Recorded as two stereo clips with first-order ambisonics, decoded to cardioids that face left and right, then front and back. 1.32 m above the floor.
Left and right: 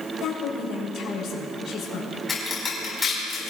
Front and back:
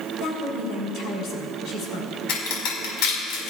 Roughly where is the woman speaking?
Ahead left.